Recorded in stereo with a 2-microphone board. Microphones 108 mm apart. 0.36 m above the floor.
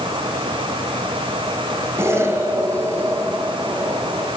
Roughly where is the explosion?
Right.